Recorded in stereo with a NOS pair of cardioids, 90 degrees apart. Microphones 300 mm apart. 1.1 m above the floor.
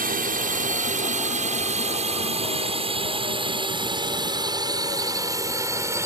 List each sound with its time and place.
0.0 s a drone: 30° right; by 6.1 s 10° right